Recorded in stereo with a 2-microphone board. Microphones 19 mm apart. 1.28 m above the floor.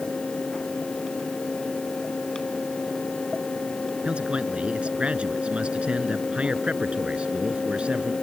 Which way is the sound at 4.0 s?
75° right (ahead or behind).